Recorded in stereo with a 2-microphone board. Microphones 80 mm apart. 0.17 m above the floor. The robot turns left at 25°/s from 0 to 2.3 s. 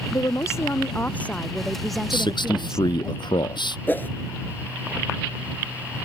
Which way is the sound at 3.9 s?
25° left (ahead or behind).